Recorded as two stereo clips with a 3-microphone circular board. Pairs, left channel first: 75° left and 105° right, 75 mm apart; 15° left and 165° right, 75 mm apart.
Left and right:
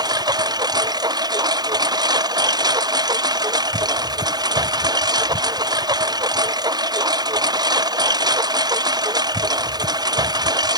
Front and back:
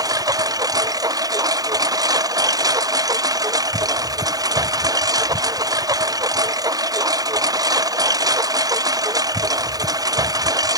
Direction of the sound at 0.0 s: 130° right.